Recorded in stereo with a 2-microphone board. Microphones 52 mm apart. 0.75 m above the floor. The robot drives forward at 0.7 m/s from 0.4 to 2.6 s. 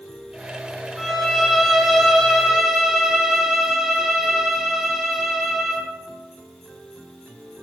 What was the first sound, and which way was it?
A violin, centre (ahead or behind).